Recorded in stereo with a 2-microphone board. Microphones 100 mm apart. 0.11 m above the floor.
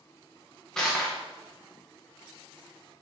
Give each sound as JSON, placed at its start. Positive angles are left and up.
{"t": 0.8, "sound": "crushing", "side_deg": 5, "distance_m": 3.0}